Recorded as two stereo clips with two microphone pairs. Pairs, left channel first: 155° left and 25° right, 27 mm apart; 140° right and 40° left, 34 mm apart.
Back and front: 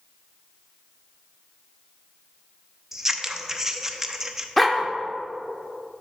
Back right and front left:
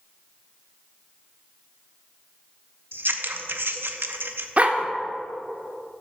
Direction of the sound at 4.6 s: 65° left.